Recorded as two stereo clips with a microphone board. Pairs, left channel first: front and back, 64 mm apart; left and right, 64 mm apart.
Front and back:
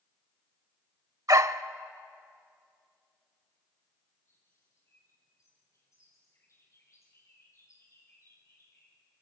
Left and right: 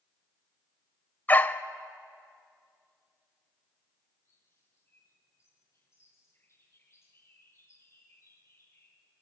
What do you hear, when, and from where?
1.3 s a dog barking: 150° left, 0.7 m
4.2 s a bird: 45° left, 6.5 m